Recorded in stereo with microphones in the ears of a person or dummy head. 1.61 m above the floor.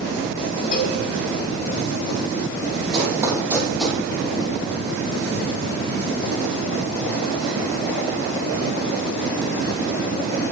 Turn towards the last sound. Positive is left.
turn(degrees=0)  # may be behind; listen again after turning